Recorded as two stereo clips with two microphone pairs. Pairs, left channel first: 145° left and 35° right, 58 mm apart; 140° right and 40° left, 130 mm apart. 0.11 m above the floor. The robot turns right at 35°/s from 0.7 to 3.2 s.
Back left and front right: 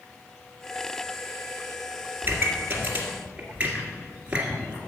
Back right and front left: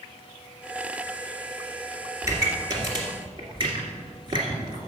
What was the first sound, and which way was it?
A pop, 15° right.